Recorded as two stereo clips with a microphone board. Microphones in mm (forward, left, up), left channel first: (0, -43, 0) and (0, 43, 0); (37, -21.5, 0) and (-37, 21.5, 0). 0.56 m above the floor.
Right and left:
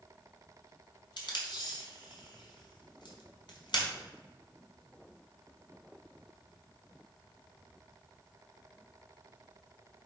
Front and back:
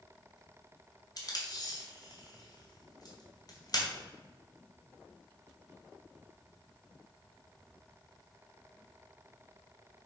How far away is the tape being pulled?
About 2 m.